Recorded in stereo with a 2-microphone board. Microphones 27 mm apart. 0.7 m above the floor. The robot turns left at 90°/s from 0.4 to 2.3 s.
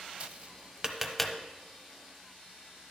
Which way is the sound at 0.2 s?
50° right (ahead or behind).